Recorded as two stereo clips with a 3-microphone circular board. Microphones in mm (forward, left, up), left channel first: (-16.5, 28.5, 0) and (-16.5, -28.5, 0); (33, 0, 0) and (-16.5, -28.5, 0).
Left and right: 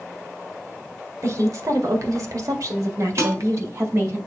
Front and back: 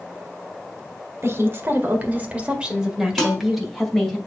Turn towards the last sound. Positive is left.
turn(degrees=-50)